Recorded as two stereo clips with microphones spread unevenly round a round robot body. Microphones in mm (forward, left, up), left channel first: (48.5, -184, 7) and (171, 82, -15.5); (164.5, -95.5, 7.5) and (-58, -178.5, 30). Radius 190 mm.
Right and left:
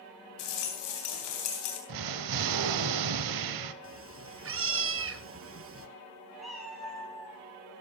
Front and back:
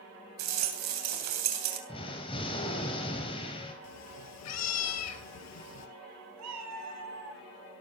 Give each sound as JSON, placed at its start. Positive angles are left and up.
{"t": 0.4, "sound": "a rattle", "azimuth_deg": -165, "distance_m": 3.0}
{"t": 1.9, "sound": "an explosion", "azimuth_deg": 95, "distance_m": 1.4}
{"t": 3.8, "sound": "a cat meowing", "azimuth_deg": 20, "distance_m": 1.9}
{"t": 6.4, "sound": "a cat meowing", "azimuth_deg": 155, "distance_m": 2.5}